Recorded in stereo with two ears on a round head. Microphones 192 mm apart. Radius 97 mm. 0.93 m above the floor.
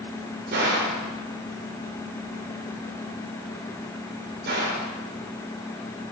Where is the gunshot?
50° right (ahead or behind), 4 m.